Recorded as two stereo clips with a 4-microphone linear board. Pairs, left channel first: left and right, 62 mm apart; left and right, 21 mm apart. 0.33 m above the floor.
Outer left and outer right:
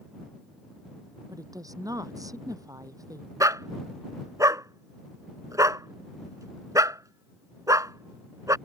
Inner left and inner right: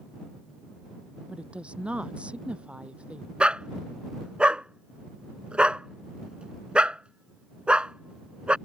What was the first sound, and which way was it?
A woman speaking, 70° right (ahead or behind).